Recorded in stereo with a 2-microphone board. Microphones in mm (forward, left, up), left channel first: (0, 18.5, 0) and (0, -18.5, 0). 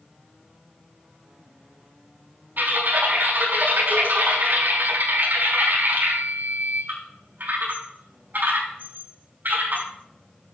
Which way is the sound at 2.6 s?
60° right (ahead or behind).